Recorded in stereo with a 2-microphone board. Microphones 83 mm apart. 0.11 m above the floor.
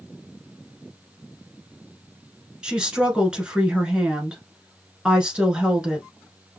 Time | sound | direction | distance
2.6 | a woman speaking | 10° right (ahead or behind) | 1.2 m